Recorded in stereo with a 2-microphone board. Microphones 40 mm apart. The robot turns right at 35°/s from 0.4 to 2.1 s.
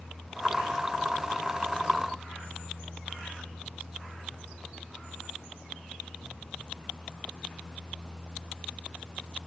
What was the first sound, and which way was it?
Only background noise.